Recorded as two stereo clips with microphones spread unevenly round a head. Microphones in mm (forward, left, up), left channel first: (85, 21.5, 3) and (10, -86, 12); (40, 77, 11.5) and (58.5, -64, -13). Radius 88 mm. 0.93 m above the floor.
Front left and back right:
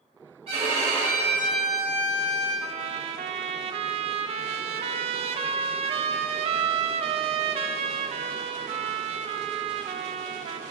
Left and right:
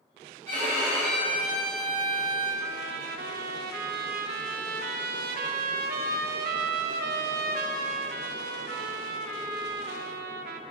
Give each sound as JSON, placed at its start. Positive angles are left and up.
{"t": 0.5, "sound": "a violin", "azimuth_deg": 180, "distance_m": 1.6}
{"t": 2.6, "sound": "a trumpet", "azimuth_deg": -85, "distance_m": 0.5}